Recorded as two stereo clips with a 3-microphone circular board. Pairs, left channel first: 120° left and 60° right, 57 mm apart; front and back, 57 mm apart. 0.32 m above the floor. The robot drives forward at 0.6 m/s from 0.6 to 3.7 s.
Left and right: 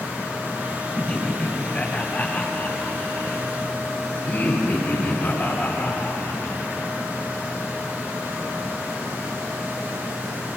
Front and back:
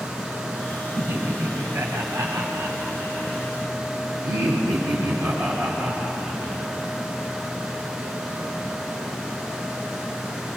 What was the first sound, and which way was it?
Laughter, straight behind.